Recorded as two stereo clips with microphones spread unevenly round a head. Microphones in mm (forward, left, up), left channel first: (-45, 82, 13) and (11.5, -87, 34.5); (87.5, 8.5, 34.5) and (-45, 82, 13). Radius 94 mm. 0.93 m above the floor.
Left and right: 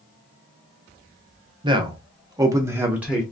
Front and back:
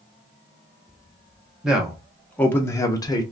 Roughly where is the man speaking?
Behind right.